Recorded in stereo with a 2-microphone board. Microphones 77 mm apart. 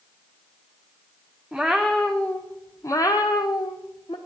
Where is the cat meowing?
5° right (ahead or behind), 1.1 m; by 4.2 s 85° left, 1.2 m.